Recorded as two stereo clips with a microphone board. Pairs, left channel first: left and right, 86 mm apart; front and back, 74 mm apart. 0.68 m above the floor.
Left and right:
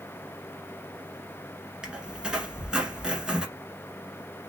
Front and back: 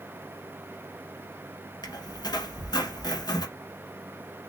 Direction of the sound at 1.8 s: 10° right.